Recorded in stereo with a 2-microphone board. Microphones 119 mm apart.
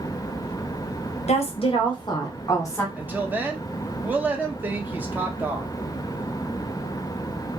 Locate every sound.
1.3 s a woman speaking: 65° left (ahead or behind), 0.8 m; by 2.9 s 25° left (ahead or behind), 1.3 m
3.0 s a woman speaking: 15° right (ahead or behind), 0.5 m